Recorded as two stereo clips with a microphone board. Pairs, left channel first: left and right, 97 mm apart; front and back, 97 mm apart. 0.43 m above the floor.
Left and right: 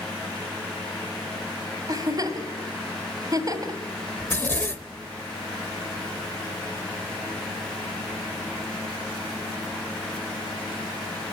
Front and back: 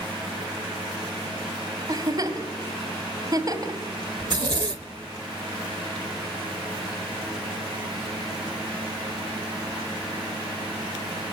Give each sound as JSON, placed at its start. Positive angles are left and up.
{"t": 1.9, "sound": "a giggle", "azimuth_deg": -135, "distance_m": 2.0}
{"t": 4.2, "sound": "a zipper", "azimuth_deg": 155, "distance_m": 0.9}